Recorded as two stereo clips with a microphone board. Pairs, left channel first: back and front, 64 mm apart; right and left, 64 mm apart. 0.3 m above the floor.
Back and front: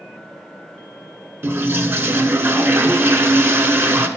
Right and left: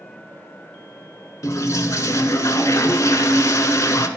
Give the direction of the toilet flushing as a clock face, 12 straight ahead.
2 o'clock.